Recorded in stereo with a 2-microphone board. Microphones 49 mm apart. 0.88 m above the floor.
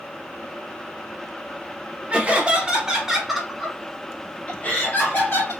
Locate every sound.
2.1 s laughter: 25° right (ahead or behind), 1.3 m; by 5.5 s 50° left (ahead or behind), 1.1 m